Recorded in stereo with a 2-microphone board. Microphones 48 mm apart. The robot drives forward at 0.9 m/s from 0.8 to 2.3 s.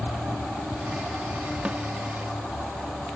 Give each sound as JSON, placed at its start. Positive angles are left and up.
{"t": 1.6, "sound": "a snare drum", "side_deg": -25}